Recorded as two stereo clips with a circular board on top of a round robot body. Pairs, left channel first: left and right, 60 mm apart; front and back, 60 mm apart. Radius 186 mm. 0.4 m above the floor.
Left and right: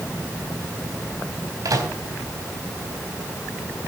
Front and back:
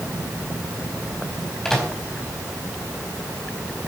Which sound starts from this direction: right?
A microwave, at 1.6 s.